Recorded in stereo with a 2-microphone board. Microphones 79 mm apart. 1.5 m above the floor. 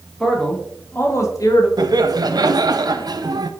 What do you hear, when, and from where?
0.2 s a man speaking: 5° left (ahead or behind), 2 m; by 1.7 s 55° left (ahead or behind), 1.6 m
1.8 s laughter: 60° right (ahead or behind), 0.8 m